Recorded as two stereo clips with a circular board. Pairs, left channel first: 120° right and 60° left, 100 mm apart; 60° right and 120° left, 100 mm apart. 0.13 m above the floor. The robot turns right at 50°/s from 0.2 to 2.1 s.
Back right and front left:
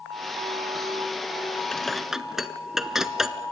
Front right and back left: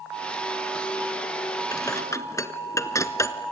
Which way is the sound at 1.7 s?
45° right.